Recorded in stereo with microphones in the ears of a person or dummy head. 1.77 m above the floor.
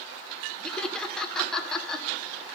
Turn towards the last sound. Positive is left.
turn(degrees=5)  # may be behind; listen again after turning